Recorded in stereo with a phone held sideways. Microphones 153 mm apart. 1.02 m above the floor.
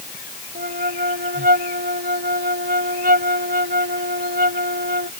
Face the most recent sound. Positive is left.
turn(degrees=-80)